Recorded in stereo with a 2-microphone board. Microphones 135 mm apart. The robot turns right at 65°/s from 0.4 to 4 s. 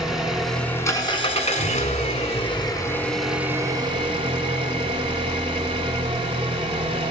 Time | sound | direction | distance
0.0 | an engine running | 5° right | 0.9 m